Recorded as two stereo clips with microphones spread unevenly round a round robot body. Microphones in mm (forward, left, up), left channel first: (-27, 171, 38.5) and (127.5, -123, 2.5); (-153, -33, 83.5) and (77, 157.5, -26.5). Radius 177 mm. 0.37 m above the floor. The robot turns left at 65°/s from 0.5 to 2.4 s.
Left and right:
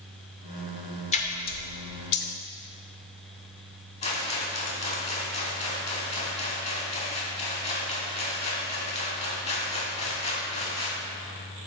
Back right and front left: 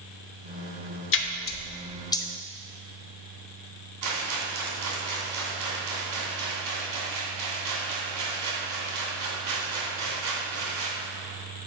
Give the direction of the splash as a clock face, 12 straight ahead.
6 o'clock.